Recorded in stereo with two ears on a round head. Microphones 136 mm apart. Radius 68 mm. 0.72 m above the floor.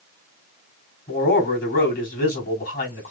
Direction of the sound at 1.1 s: 60° left (ahead or behind).